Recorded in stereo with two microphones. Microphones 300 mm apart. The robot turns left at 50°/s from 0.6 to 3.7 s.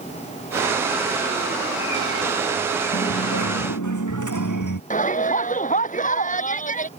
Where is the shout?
25° left (ahead or behind).